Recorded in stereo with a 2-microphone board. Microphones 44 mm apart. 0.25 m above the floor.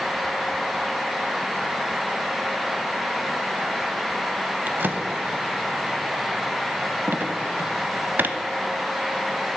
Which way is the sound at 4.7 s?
50° right (ahead or behind).